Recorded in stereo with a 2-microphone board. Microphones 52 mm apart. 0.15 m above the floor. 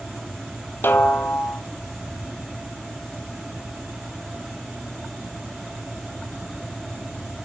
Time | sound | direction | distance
0.8 | a snare drum | 45° left (ahead or behind) | 0.7 m